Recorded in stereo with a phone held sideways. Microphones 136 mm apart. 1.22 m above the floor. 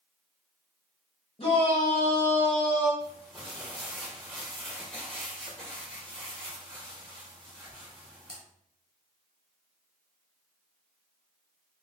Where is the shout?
45° left (ahead or behind), 1.3 m; by 2.9 s 10° left (ahead or behind), 1.7 m.